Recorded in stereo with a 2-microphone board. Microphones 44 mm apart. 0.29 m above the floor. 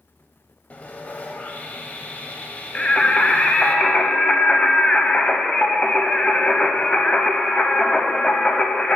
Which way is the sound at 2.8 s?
25° left (ahead or behind).